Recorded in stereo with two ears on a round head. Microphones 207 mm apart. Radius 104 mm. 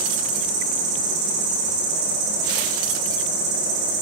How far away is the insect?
About 7 m.